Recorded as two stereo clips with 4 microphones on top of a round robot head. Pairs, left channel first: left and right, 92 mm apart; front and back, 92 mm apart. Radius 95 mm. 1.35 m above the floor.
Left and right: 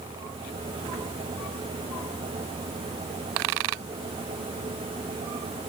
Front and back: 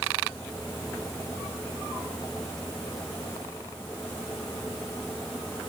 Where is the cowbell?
I don't hear a cowbell.